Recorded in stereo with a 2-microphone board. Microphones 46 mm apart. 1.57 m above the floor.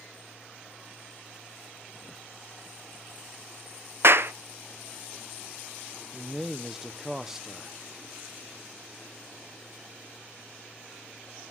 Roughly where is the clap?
Right.